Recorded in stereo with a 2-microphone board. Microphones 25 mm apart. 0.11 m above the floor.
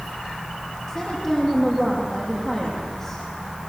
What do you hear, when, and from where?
0.9 s a woman speaking: 20° left (ahead or behind), 5 m